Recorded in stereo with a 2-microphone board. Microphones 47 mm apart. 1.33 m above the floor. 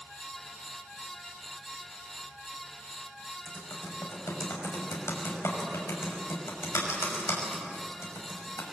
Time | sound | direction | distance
3.5 | typing on a keyboard | 80° left | 6 m